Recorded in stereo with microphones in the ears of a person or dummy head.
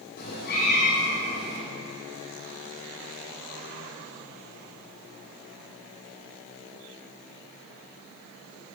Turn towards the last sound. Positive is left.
turn(degrees=55)  # may be behind; listen again after turning